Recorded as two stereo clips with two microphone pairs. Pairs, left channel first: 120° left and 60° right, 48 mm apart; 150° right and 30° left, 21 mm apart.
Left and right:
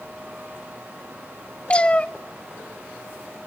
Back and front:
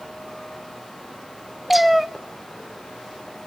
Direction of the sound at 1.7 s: 100° left.